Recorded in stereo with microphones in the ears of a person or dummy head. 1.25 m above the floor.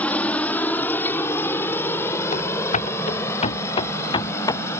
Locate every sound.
0.0 s a helicopter: 5° left (ahead or behind); by 4.8 s 10° left (ahead or behind)
2.3 s running footsteps: 45° left (ahead or behind); by 4.6 s 25° left (ahead or behind)